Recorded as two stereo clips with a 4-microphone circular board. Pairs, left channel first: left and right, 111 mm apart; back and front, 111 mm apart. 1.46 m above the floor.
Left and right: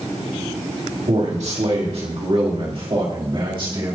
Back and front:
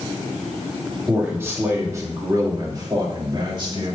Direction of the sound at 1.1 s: 75° right.